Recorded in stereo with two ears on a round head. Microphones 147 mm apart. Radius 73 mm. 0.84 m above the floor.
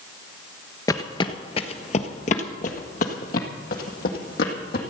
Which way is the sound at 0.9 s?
20° left (ahead or behind).